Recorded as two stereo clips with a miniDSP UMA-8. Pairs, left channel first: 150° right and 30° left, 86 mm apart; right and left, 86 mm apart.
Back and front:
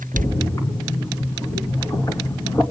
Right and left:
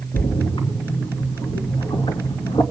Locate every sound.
0.1 s a splash: 100° right, 2.5 m